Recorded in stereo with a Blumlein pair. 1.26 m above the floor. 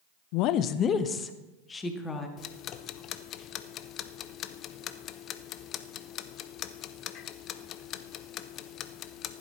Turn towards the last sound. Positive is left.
turn(degrees=30)